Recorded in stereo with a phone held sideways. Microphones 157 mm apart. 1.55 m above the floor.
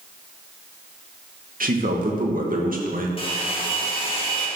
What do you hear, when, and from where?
1.6 s a man speaking: 65° right (ahead or behind), 2 m
3.2 s a hair dryer: 35° left (ahead or behind), 2.5 m